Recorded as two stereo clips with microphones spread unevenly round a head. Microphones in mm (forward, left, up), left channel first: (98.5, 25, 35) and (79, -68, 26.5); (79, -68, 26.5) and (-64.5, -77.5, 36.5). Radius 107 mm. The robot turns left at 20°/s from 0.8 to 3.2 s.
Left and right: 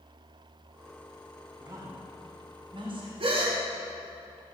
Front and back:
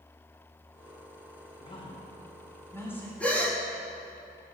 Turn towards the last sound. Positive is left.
turn(degrees=-75)